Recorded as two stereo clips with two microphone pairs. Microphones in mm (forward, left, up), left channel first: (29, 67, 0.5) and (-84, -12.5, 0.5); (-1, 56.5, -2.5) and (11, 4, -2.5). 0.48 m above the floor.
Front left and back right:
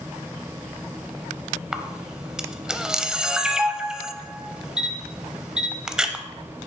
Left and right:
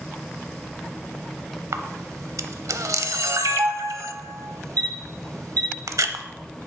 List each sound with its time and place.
1.7 s a camera shutter: 60° right, 0.6 m